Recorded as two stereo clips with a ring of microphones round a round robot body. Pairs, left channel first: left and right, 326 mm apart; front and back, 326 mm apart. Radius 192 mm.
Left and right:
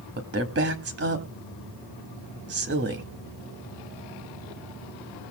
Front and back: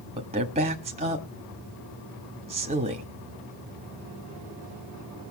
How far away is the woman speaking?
About 1.7 m.